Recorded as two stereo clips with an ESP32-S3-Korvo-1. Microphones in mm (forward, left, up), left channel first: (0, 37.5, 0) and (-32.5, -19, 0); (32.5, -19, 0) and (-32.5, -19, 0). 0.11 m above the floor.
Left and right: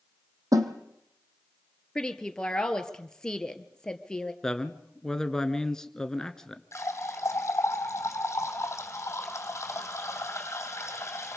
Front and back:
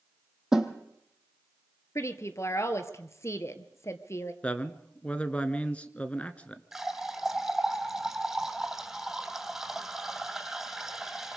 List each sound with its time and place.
0.5 s a snare drum: 100° right, 2 m
1.9 s a woman speaking: 15° right, 1.9 m
4.4 s a man speaking: straight ahead, 1.3 m
6.7 s a running tap: 100° left, 2.5 m